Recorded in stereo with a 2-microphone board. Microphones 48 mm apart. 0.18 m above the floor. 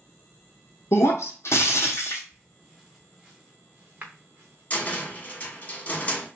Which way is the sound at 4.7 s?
30° left (ahead or behind).